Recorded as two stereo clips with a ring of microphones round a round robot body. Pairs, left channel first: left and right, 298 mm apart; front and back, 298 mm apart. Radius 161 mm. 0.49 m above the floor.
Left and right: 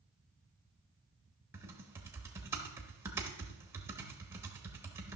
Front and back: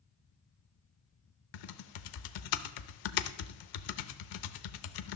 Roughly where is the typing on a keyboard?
Ahead.